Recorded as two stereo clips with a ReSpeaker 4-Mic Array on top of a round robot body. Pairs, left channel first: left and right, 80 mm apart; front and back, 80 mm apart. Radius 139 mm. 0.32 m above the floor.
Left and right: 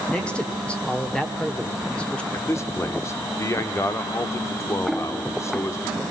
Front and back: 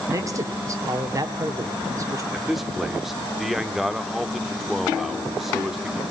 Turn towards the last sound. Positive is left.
turn(degrees=95)